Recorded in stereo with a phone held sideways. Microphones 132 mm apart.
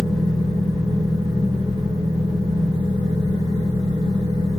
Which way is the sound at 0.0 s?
35° right (ahead or behind).